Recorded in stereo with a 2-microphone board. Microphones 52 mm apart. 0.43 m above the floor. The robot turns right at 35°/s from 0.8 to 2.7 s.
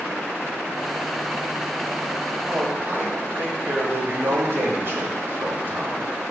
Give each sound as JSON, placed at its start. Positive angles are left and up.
{"t": 2.5, "sound": "a man speaking", "side_deg": -50, "distance_m": 1.7}